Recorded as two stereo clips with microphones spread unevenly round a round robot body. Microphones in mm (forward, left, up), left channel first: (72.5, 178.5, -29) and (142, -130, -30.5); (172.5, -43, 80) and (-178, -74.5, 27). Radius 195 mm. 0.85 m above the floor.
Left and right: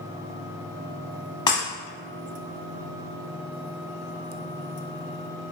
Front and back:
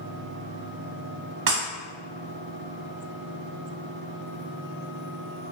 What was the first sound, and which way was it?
Breaking glass, 155° left.